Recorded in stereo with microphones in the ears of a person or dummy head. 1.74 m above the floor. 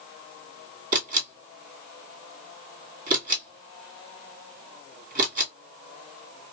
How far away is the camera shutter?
About 1.9 m.